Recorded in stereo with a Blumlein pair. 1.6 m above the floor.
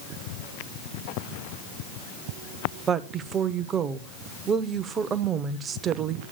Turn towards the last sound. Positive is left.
turn(degrees=-25)